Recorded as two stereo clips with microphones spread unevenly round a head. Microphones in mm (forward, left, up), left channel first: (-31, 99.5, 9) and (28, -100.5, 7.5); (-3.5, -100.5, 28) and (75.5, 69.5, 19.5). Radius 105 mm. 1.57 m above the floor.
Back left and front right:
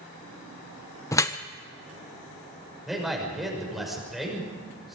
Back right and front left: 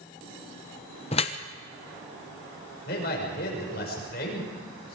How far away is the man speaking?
About 6 m.